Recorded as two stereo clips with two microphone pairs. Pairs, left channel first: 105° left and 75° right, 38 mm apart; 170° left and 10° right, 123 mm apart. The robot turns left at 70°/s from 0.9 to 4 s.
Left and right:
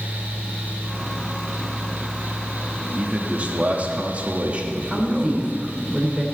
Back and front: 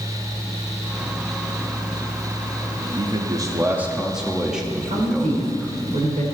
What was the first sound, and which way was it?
A man speaking, 15° right.